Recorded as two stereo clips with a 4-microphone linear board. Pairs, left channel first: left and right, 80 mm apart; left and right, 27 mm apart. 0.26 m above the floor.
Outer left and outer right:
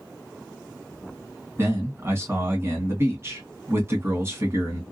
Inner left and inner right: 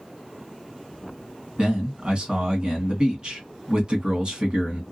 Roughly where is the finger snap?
I don't hear a finger snap.